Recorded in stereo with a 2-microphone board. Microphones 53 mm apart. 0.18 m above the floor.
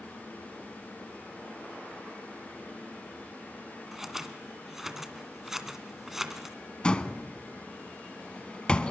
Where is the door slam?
15° left (ahead or behind), 1.1 m.